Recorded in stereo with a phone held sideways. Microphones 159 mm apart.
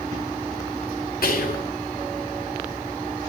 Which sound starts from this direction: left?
Whispering, at 1.2 s.